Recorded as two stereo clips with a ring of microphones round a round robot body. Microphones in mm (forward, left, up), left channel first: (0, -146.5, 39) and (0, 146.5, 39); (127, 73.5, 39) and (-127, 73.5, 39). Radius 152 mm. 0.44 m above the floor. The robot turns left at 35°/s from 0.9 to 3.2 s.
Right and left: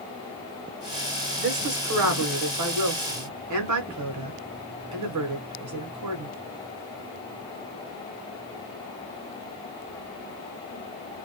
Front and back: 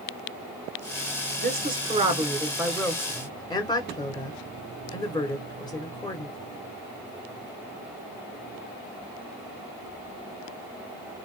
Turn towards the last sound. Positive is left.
turn(degrees=75)